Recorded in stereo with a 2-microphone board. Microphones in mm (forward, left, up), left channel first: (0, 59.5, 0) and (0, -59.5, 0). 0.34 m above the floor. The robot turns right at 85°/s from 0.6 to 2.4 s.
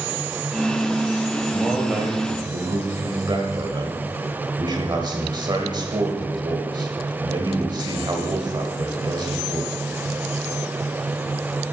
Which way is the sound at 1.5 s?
175° left.